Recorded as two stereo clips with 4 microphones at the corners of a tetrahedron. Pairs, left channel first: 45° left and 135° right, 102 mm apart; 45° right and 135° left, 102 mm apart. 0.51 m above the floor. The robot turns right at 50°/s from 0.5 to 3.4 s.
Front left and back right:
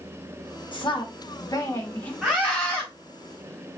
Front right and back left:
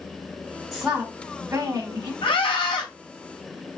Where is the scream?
45° right, 3 m; by 2.9 s 10° right, 3 m.